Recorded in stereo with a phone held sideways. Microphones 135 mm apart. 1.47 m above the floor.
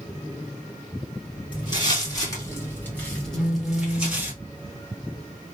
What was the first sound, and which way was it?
Footsteps, 35° left (ahead or behind).